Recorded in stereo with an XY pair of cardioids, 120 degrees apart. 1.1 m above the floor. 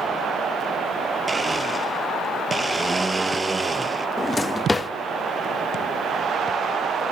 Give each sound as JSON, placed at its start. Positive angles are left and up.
{"t": 1.3, "sound": "a blender", "azimuth_deg": -20, "distance_m": 0.6}
{"t": 4.2, "sound": "a drawer", "azimuth_deg": 15, "distance_m": 0.7}